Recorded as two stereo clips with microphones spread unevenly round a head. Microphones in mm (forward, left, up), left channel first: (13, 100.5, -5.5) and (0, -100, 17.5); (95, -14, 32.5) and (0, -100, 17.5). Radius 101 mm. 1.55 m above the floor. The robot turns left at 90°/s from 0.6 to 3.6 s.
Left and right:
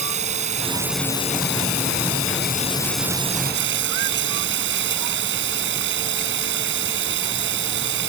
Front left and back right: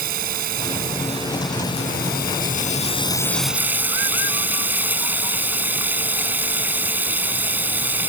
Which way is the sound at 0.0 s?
150° right.